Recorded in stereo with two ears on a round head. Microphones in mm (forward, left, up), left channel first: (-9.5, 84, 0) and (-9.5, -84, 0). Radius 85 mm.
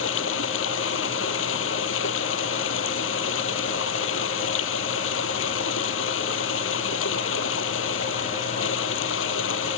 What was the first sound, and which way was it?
Running water, 75° left (ahead or behind).